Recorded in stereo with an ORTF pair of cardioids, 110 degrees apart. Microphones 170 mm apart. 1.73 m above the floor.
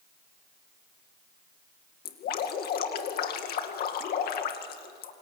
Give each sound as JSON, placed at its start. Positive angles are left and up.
{"t": 2.0, "sound": "dripping", "azimuth_deg": 65, "distance_m": 2.5}